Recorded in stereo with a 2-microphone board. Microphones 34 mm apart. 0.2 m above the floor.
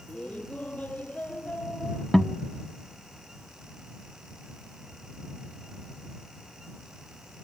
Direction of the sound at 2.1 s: 15° left (ahead or behind).